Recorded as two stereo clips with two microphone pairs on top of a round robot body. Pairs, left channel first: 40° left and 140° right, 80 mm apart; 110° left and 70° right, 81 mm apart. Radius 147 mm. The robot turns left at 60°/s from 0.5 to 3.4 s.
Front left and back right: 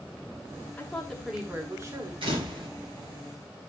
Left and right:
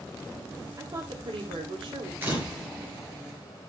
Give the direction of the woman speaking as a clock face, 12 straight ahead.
1 o'clock.